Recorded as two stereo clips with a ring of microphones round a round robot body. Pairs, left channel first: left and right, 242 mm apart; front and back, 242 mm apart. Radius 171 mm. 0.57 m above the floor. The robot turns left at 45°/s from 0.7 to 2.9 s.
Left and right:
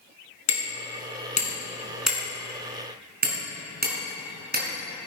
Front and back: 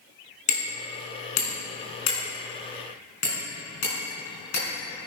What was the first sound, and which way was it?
Hammering, 60° left.